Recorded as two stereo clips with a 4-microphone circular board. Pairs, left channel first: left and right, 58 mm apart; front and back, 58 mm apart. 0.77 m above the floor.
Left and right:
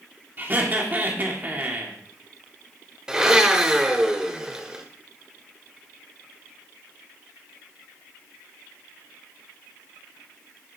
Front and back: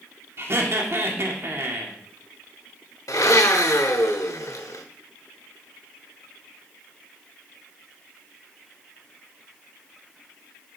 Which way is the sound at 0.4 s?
145° right.